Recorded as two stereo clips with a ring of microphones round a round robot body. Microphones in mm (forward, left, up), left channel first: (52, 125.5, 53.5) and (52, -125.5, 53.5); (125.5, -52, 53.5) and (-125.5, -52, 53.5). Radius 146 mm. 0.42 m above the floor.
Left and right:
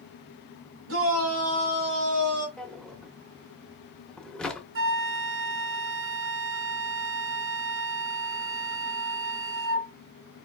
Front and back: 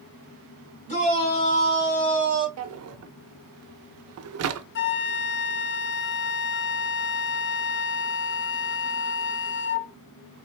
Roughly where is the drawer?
Behind.